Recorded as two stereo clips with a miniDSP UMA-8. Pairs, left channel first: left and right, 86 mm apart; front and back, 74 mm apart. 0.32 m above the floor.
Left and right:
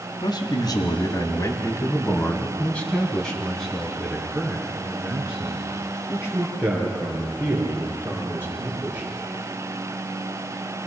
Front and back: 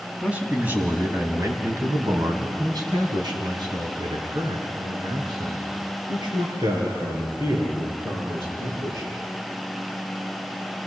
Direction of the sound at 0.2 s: 110° left.